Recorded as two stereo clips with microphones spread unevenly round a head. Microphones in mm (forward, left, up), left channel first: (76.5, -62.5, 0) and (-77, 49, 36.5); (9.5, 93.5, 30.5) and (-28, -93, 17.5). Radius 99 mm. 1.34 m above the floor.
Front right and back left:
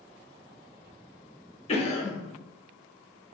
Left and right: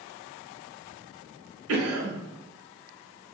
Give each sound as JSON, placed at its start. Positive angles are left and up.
{"t": 1.7, "sound": "a cough", "azimuth_deg": -95, "distance_m": 1.2}